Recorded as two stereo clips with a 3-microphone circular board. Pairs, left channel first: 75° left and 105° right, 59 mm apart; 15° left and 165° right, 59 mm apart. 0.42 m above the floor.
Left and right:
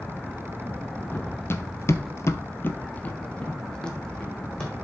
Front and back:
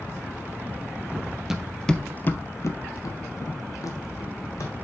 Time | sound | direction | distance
1.1 | running footsteps | 125° left | 0.8 m